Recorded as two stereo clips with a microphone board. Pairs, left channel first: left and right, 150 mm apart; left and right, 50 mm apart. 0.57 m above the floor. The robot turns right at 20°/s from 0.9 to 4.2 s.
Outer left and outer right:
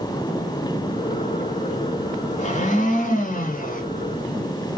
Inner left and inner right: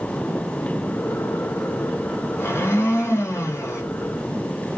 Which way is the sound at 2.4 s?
50° left (ahead or behind).